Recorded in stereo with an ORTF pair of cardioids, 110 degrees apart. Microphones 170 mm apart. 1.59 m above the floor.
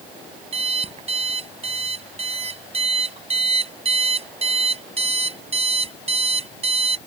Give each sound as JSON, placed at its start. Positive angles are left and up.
{"t": 0.5, "sound": "an alarm clock", "azimuth_deg": -35}